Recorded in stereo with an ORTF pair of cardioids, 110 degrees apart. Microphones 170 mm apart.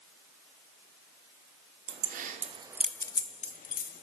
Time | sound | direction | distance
1.9 | keys jangling | 65° right | 1.0 m